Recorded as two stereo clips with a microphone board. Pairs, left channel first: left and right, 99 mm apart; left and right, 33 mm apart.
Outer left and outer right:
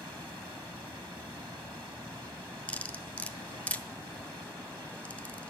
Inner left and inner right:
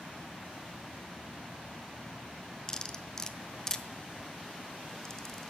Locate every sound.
2.7 s cutlery clinking: 15° left (ahead or behind), 0.8 m